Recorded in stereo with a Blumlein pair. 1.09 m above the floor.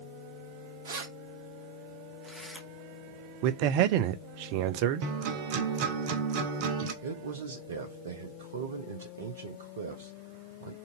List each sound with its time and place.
0.8 s keys jangling: 60° right, 0.8 m; by 2.7 s 5° right, 1.1 m
3.4 s a man speaking: 45° right, 0.5 m
5.0 s a guitar: 45° right, 0.8 m
7.0 s a man speaking: 60° right, 0.7 m